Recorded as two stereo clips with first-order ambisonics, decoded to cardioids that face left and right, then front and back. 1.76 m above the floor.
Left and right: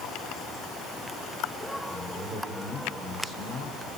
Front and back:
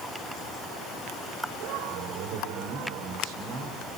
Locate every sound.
1.9 s a man speaking: 165° right, 7 m; by 4.0 s 160° right, 7 m